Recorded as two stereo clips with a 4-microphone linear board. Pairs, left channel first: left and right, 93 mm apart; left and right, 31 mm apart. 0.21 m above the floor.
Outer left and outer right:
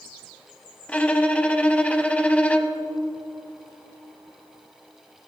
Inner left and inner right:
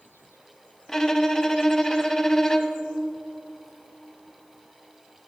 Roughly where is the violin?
Centre.